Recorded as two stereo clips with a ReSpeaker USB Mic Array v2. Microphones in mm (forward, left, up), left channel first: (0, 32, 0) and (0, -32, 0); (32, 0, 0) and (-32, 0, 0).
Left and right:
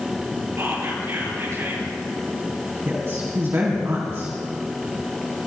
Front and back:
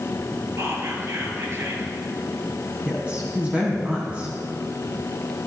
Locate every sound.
0.6 s whispering: 140° right, 4.5 m
2.9 s a woman speaking: 115° right, 2.5 m